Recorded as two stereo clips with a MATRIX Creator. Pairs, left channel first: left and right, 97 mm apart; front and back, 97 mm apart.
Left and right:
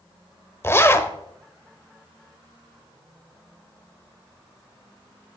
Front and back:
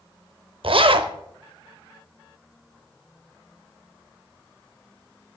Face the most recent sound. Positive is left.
turn(degrees=155)